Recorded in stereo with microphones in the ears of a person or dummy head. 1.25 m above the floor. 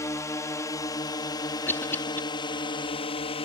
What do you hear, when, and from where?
0.0 s a drone: 10° left (ahead or behind); by 3.5 s 25° left (ahead or behind)
1.7 s a cough: 15° left (ahead or behind)